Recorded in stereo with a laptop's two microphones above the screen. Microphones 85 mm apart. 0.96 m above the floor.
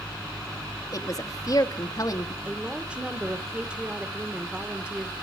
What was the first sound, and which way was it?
A woman speaking, 40° left (ahead or behind).